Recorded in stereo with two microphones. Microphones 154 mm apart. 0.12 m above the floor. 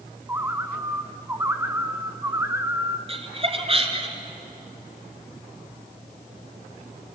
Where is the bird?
15° right (ahead or behind), 0.8 m.